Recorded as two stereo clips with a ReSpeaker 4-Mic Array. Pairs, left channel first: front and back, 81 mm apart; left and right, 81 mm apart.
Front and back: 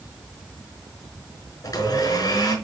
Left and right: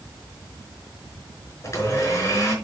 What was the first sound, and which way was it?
A blender, 35° left.